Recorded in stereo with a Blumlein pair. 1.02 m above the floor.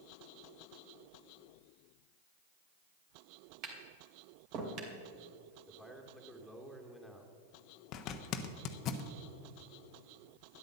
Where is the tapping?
40° right, 2.5 m.